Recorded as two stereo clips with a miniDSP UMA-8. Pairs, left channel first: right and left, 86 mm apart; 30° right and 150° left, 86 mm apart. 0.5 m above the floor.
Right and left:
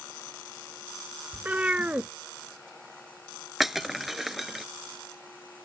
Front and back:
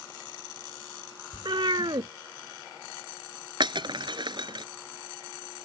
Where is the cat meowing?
160° left.